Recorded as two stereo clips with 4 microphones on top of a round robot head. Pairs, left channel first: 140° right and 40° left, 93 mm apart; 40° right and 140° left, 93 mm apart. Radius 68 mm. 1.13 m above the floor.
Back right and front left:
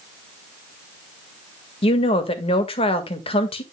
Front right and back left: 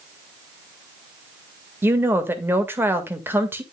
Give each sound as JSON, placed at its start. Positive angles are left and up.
{"t": 1.8, "sound": "a woman speaking", "azimuth_deg": -155, "distance_m": 1.8}